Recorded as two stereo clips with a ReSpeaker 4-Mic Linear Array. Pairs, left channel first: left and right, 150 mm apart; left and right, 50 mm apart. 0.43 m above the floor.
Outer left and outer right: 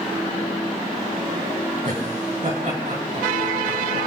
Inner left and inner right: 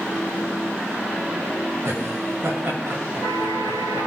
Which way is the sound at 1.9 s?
60° right (ahead or behind).